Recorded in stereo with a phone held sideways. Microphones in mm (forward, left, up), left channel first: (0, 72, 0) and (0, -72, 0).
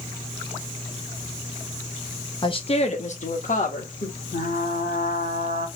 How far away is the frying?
About 1.0 m.